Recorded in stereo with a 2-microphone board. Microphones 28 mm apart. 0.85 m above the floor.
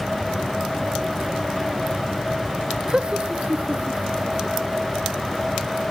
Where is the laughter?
35° right (ahead or behind), 0.7 m; by 4.9 s 55° right (ahead or behind), 2.5 m.